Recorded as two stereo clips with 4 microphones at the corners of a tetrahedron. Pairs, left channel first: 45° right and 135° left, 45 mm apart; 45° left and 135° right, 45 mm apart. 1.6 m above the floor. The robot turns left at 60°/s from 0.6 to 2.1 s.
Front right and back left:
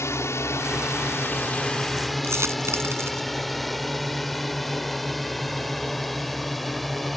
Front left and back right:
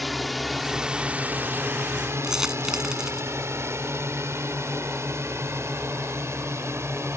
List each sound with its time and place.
0.0 s a drone: 45° right; by 7.2 s 135° right
2.2 s a dropped coin: 145° left